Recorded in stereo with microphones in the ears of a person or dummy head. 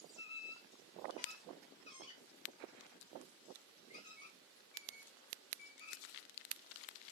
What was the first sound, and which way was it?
A squeak, 30° left (ahead or behind).